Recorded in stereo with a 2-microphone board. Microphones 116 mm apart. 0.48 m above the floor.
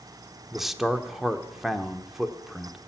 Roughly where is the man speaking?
Centre.